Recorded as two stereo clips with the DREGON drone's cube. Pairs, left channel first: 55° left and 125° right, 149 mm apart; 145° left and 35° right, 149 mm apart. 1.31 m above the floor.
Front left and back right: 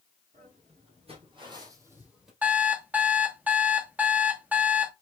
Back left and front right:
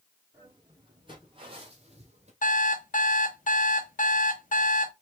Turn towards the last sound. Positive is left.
turn(degrees=155)